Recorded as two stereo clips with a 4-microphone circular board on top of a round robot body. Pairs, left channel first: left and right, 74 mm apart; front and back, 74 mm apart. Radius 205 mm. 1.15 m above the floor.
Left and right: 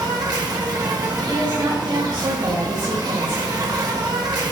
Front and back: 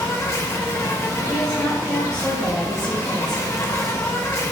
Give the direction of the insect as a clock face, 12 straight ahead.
2 o'clock.